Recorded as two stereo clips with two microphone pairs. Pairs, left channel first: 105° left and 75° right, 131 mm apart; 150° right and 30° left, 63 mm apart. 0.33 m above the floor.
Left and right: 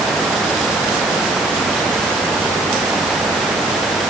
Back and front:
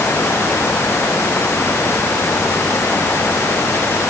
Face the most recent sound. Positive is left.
No sound to turn to.